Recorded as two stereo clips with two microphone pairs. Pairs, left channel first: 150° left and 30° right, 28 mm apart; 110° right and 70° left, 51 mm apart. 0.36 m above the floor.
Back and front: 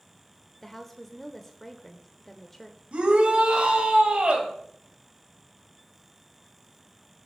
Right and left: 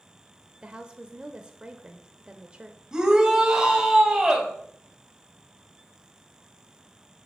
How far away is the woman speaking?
About 0.8 m.